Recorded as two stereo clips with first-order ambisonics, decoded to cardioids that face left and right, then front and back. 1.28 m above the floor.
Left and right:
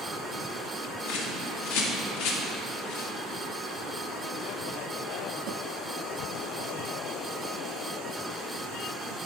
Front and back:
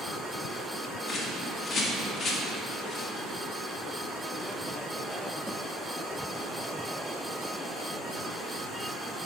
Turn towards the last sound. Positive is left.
turn(degrees=75)